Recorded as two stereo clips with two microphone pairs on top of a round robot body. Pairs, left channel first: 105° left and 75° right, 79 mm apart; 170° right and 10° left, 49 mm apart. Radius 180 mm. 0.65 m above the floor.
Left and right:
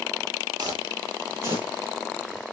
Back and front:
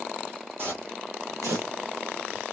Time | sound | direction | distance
0.6 | footsteps | 35° right | 2 m